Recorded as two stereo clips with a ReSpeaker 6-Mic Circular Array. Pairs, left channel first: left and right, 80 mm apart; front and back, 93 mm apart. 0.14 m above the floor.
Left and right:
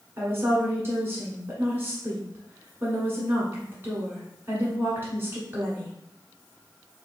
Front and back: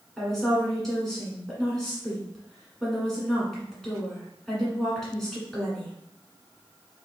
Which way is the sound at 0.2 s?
80° right.